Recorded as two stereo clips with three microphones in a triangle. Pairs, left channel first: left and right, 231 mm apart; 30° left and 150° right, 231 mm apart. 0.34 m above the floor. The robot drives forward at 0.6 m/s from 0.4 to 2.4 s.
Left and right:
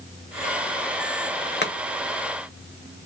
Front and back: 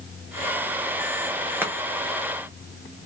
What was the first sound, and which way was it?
Chopping, 130° left.